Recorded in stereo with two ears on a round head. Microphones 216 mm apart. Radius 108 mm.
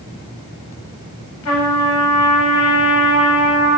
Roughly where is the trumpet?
Left.